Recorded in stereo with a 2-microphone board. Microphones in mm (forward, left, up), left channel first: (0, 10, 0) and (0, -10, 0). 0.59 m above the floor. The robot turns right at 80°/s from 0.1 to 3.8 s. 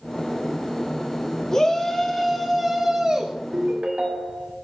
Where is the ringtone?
70° right (ahead or behind), 1.9 m; by 4.5 s 85° right, 1.9 m.